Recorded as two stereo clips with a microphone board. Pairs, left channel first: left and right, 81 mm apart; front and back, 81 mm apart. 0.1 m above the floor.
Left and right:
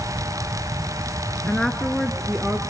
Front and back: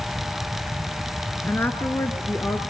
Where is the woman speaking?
30° left, 1.2 m; by 2.6 s 25° right, 1.3 m.